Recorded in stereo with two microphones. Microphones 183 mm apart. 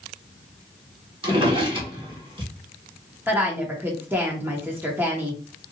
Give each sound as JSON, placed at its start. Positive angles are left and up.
{"t": 1.2, "sound": "a drawer", "side_deg": -30, "distance_m": 1.2}
{"t": 3.3, "sound": "a woman speaking", "side_deg": -10, "distance_m": 0.8}